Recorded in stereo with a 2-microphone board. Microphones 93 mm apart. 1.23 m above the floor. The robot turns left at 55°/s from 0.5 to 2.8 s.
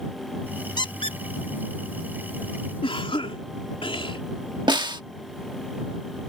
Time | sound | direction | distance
0.8 | a squeak | 50° left (ahead or behind) | ?
2.8 | a cough | 70° left (ahead or behind) | ?
4.7 | a snare drum | 55° right (ahead or behind) | ?